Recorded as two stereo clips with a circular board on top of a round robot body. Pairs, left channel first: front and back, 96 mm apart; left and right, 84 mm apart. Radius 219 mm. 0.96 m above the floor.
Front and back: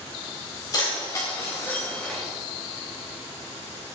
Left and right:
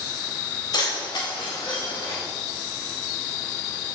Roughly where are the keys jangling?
Ahead left.